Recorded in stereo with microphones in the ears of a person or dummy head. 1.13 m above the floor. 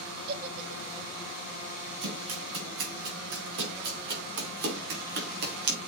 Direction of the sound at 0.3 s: 50° right (ahead or behind).